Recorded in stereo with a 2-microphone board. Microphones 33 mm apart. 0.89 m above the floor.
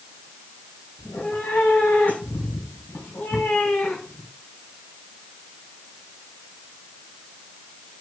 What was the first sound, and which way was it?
A cat meowing, 60° left (ahead or behind).